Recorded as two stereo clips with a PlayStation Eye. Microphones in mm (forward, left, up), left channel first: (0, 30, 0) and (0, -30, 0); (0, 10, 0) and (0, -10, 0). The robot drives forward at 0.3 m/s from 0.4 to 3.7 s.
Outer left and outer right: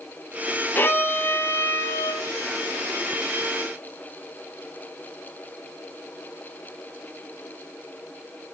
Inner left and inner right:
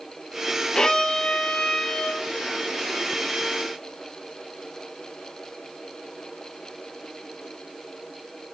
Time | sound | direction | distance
0.8 | a violin | 35° left (ahead or behind) | 0.8 m